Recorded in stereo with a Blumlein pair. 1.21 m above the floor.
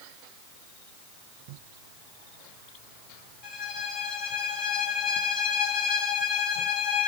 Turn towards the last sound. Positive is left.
turn(degrees=35)